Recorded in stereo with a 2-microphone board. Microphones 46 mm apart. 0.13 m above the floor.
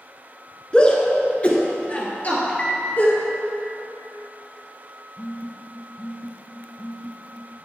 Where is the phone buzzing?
50° left (ahead or behind), 1.5 m.